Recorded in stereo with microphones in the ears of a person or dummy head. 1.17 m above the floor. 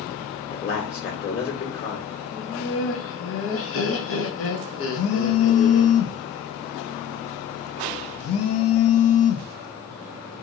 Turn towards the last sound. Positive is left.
turn(degrees=75)  # may be behind; listen again after turning